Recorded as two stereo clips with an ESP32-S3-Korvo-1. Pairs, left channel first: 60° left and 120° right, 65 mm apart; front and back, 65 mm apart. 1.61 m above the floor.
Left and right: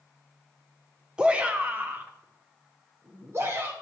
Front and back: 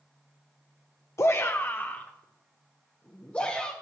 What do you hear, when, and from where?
1.2 s a shout: 45° right, 0.5 m; by 3.7 s 75° right, 1.7 m